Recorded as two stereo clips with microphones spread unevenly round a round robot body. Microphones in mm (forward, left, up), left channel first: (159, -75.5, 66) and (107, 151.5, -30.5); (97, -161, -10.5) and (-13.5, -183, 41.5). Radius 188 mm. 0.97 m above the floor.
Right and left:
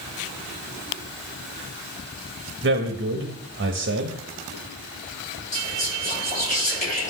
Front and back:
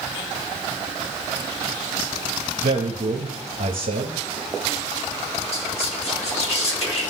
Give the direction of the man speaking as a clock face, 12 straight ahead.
7 o'clock.